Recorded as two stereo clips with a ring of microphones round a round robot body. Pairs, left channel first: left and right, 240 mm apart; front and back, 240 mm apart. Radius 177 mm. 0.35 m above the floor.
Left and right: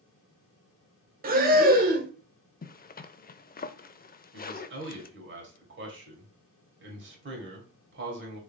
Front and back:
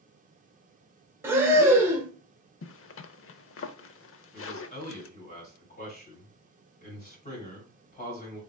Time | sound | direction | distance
1.2 | breathing | 105° right | 0.9 m
2.6 | a zipper | 35° left | 0.6 m
4.3 | a man speaking | 60° right | 2 m